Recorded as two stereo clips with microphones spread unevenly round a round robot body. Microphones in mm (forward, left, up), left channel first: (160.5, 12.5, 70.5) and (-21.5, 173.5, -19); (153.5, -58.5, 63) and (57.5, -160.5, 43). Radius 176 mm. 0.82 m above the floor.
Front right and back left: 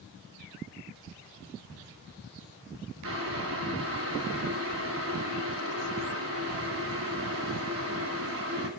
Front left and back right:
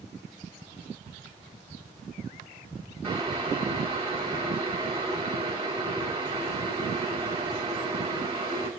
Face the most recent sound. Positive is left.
turn(degrees=150)